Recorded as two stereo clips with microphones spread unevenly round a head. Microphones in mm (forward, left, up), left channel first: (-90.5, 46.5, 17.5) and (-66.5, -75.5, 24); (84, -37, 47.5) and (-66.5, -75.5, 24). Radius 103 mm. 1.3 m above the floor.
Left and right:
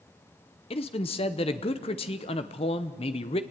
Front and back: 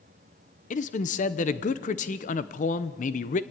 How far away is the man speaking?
About 1.0 m.